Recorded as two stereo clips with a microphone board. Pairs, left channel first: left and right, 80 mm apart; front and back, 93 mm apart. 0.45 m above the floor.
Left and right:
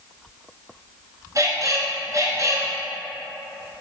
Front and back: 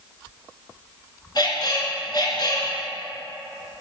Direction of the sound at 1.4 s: 40° right.